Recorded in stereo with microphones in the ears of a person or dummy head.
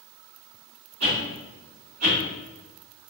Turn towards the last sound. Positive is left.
turn(degrees=-80)